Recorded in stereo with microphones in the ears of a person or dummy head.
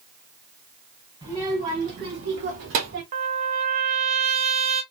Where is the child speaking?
30° right (ahead or behind), 1.9 m; by 3.0 s 65° right (ahead or behind), 2 m.